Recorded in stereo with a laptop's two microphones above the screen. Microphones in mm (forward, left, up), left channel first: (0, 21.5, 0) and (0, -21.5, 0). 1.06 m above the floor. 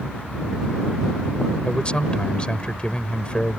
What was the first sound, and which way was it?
A man speaking, 25° left (ahead or behind).